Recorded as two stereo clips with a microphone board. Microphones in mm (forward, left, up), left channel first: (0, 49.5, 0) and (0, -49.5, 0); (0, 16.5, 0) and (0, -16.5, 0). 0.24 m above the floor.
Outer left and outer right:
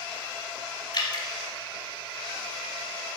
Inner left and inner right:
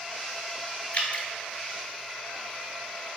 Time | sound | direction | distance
0.9 | dripping | 50° left (ahead or behind) | 0.7 m